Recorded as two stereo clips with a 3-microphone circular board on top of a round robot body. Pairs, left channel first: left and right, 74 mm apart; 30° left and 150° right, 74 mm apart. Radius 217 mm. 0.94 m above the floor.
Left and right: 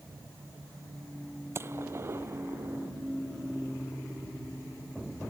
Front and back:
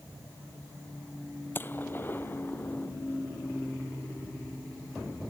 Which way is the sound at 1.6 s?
35° right.